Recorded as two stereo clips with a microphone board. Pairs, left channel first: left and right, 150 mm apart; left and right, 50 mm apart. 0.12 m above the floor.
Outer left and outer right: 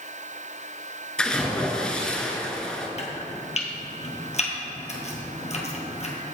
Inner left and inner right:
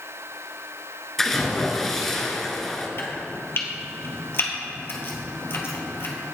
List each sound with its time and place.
1.2 s a splash: 5° left (ahead or behind), 1.1 m
3.0 s chopping: 50° left (ahead or behind), 1.5 m